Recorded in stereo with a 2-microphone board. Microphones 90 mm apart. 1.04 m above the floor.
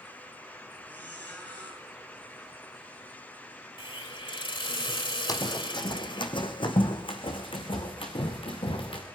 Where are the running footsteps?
45° left (ahead or behind), 1.8 m; by 9.0 s 75° left (ahead or behind), 4.5 m.